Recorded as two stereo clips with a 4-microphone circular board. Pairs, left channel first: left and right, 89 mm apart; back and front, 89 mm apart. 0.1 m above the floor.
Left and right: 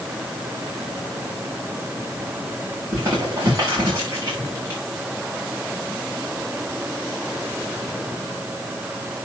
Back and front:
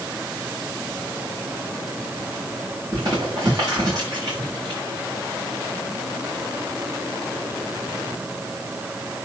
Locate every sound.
2.9 s crumpling: 35° right, 6 m